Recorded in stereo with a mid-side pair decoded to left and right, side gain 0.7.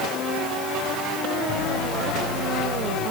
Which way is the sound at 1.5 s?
65° left.